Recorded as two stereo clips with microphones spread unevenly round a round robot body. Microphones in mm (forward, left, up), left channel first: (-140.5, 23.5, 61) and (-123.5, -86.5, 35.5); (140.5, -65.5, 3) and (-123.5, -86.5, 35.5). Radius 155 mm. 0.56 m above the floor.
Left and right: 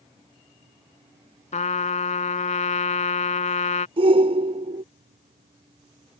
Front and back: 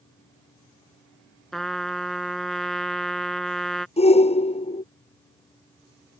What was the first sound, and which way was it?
A trumpet, 95° left.